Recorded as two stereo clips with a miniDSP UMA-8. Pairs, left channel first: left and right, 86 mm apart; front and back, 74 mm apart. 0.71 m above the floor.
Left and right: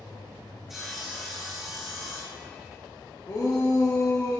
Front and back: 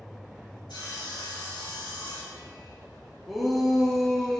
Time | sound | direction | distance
0.7 | sawing | 5° right | 4 m
3.3 | a shout | 90° left | 1.1 m